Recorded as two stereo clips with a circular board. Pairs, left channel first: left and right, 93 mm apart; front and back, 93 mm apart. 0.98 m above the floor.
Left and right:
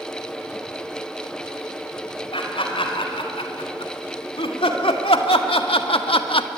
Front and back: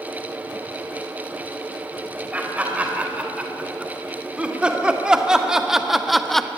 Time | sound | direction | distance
2.3 | laughter | 105° left | 4.5 m